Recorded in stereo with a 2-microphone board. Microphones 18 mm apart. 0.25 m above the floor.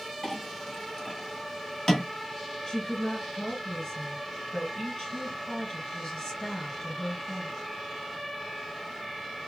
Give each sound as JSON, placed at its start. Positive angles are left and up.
{"t": 0.2, "sound": "a clink", "side_deg": 35, "distance_m": 1.1}
{"t": 2.7, "sound": "a woman speaking", "side_deg": 30, "distance_m": 2.0}